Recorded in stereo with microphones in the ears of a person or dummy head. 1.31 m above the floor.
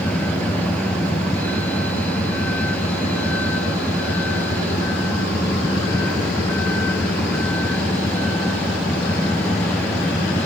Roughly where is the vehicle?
Centre.